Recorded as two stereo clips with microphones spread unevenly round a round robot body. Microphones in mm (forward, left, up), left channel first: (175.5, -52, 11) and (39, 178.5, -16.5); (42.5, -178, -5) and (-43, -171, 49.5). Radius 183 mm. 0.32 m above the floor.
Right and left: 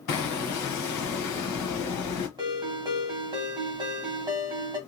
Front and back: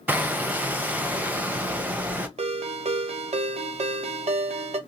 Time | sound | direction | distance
0.1 | hammering | 95° right | 0.9 m
2.4 | a ringtone | 170° right | 0.7 m